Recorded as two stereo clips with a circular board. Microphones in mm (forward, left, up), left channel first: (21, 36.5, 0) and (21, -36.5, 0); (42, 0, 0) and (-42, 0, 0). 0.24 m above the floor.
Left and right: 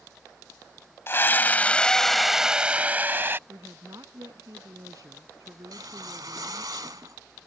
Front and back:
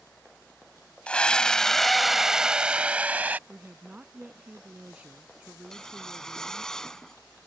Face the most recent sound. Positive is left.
turn(degrees=-85)